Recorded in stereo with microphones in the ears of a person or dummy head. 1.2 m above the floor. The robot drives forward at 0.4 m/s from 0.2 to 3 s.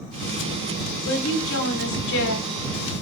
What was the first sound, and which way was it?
A woman speaking, 70° left (ahead or behind).